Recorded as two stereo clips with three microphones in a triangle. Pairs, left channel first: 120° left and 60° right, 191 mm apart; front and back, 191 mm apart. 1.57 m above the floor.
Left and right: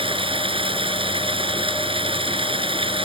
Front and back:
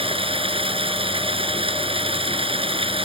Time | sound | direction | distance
0.0 | running water | 120° right | ?